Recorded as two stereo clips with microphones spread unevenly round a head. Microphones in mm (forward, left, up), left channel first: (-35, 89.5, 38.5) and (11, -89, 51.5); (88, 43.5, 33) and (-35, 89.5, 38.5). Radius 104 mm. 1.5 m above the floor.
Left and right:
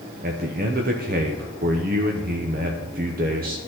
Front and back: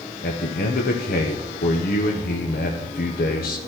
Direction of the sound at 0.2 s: 30° right.